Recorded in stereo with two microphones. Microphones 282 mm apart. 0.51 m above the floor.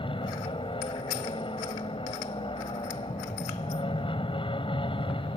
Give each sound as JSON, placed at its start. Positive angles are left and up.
{"t": 0.0, "sound": "an aircraft", "side_deg": 20}